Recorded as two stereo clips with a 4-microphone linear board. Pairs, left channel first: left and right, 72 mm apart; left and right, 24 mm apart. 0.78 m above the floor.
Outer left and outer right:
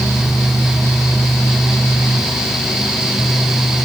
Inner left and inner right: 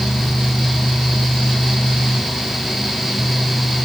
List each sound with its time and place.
Only background noise.